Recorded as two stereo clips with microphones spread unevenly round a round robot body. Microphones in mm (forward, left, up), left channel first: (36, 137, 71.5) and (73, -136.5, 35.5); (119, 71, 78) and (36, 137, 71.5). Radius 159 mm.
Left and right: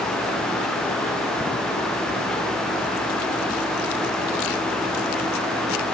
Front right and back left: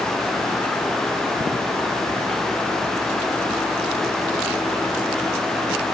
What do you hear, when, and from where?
Only background noise.